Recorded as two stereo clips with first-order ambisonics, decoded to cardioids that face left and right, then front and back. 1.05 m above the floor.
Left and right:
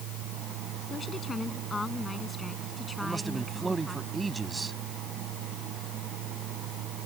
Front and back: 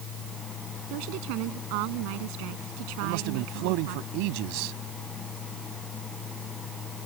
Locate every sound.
0.9 s a woman speaking: 165° left; by 4.0 s 175° right
3.0 s a man speaking: 170° right